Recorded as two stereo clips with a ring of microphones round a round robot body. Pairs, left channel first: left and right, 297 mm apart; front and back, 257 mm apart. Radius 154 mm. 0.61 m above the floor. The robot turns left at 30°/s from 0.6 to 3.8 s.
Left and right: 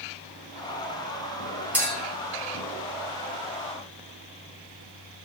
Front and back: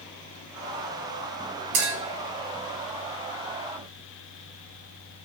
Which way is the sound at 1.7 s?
175° right.